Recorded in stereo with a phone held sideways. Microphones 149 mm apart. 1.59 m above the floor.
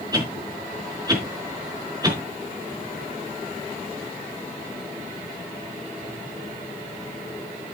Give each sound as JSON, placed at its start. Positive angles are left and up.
{"t": 0.1, "sound": "a whoosh", "side_deg": -25, "distance_m": 4.0}